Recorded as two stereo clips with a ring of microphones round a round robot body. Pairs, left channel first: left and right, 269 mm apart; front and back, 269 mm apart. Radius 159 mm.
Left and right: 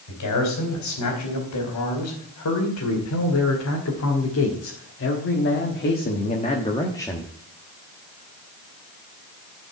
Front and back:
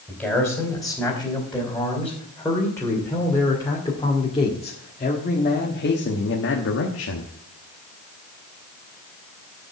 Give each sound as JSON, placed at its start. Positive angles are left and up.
{"t": 0.1, "sound": "a man speaking", "azimuth_deg": 90, "distance_m": 3.5}